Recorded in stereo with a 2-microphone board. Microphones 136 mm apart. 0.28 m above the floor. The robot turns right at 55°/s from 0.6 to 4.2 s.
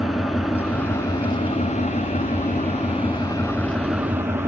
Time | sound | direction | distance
0.0 | an engine running | straight ahead | 1.1 m